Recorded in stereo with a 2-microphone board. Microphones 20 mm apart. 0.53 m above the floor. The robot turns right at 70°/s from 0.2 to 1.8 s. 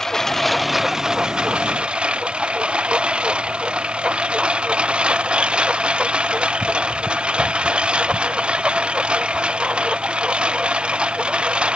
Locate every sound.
0.0 s a lawn mower: 150° left; by 11.8 s 95° right